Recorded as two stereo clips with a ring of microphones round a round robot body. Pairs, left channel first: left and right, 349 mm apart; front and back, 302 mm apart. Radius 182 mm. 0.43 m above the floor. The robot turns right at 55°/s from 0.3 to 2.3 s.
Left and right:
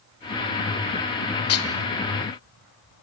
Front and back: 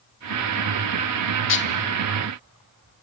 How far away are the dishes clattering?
About 1.2 m.